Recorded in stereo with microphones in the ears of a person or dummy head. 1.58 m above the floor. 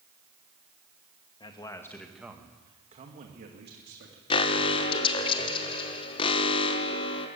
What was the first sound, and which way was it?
A man speaking, 30° left (ahead or behind).